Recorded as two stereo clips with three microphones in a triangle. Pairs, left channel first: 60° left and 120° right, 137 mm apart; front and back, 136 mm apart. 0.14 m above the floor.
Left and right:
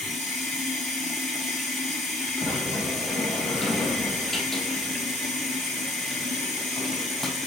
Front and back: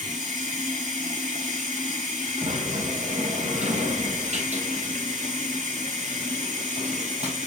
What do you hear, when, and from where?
0.0 s running water: 145° left, 4.5 m
2.4 s a sliding door: 145° left, 2.5 m